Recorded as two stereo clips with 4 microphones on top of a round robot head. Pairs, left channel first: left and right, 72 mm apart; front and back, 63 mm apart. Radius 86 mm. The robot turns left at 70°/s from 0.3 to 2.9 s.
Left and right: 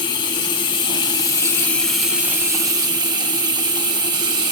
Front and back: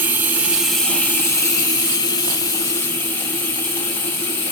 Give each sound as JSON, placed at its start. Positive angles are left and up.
{"t": 0.0, "sound": "running water", "azimuth_deg": 120, "distance_m": 3.5}